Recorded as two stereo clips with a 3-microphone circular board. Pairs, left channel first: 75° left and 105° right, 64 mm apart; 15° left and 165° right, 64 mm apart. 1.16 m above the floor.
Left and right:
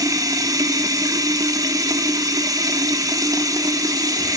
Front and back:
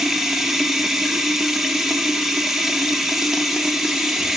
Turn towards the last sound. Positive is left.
turn(degrees=-80)